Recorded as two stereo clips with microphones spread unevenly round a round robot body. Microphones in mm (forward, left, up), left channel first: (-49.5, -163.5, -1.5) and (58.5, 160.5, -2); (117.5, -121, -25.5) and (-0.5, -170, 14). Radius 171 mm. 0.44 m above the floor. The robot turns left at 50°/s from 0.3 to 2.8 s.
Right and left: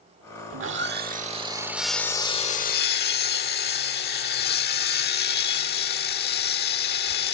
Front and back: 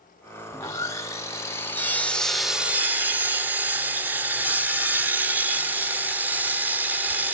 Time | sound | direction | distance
0.5 | sawing | 50° left | 1.2 m